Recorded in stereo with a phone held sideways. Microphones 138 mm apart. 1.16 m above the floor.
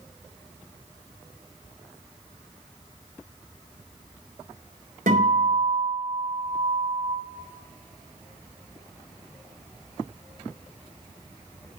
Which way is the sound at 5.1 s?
80° right.